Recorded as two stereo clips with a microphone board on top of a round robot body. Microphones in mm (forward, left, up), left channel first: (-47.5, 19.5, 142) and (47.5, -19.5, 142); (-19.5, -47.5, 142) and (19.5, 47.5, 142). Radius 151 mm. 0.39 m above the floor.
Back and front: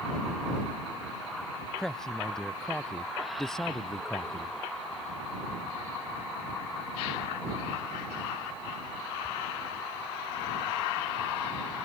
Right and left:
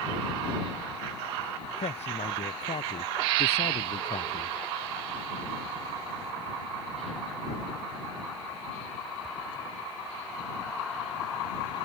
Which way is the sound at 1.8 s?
115° right.